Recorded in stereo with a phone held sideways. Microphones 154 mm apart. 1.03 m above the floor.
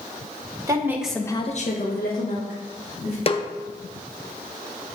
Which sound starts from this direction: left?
A snare drum, at 3.3 s.